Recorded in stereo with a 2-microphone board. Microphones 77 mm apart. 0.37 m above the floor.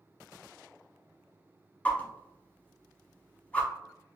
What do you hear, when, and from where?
1.9 s a whoosh: 20° left (ahead or behind), 0.5 m